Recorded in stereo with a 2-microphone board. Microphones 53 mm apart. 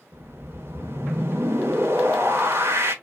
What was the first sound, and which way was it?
A whoosh, 55° right (ahead or behind).